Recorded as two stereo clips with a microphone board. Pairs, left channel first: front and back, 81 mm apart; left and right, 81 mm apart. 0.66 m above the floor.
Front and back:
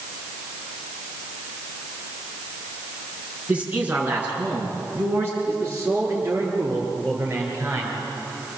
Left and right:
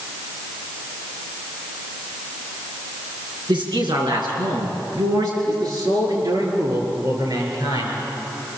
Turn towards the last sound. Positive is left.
turn(degrees=-120)